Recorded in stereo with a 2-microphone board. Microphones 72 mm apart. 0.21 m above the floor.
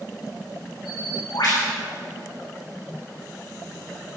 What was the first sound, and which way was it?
A bird, 70° left (ahead or behind).